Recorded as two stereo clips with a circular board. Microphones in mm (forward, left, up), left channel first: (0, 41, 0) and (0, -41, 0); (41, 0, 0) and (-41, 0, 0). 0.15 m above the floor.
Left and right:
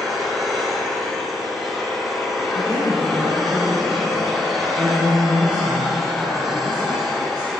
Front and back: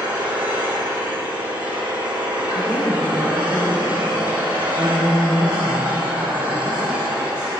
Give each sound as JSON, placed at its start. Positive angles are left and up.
{"t": 0.0, "sound": "an engine running", "azimuth_deg": 180, "distance_m": 4.0}
{"t": 2.5, "sound": "a woman speaking", "azimuth_deg": -130, "distance_m": 5.0}